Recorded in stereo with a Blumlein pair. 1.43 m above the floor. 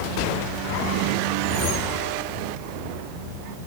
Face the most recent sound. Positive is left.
turn(degrees=25)